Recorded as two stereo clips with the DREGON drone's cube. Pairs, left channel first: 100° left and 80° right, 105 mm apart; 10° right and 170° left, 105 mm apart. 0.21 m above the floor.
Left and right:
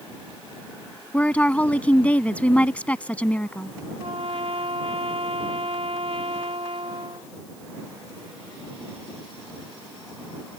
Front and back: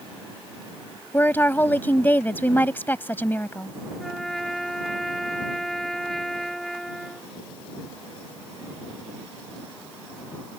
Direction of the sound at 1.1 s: 40° left.